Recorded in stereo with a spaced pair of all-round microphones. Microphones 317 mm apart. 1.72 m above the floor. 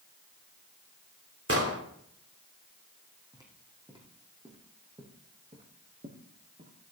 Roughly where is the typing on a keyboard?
No typing on a keyboard in this recording.